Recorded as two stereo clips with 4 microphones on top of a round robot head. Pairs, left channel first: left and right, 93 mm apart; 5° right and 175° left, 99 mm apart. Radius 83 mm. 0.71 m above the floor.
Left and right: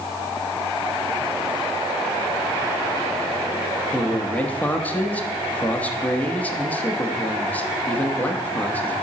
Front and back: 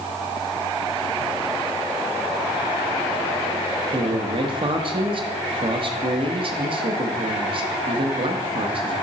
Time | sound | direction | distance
3.9 | a man speaking | 160° left | 1.1 m